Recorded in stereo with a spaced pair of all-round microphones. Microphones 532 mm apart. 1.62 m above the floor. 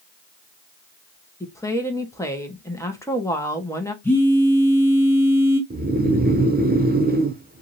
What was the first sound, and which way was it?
A woman speaking, 5° left (ahead or behind).